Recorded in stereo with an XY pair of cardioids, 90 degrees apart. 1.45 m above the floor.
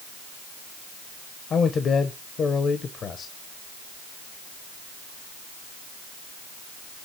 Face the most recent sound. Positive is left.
turn(degrees=60)